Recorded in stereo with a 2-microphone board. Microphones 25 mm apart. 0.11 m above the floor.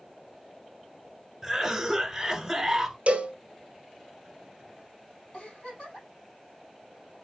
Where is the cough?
5° right (ahead or behind), 1.2 m.